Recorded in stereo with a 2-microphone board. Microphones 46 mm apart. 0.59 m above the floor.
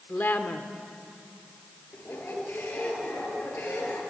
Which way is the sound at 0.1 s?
45° left (ahead or behind).